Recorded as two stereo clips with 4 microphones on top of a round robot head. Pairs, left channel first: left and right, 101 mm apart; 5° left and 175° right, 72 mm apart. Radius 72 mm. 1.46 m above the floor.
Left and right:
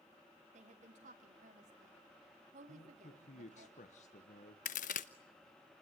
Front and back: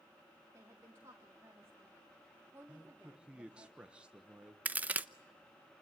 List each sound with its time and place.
0.5 s a woman speaking: 110° right, 3 m
2.7 s a man speaking: 110° left, 1.3 m
4.7 s a crack: 120° left, 0.8 m